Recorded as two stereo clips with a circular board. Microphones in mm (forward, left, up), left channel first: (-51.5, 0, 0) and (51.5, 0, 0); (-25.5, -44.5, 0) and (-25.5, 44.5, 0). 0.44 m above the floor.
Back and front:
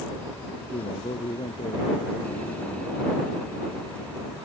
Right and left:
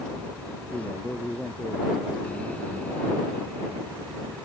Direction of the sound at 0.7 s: 170° right.